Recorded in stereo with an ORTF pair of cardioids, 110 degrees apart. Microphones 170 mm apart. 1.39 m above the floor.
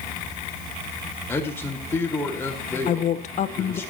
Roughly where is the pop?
No pop in this recording.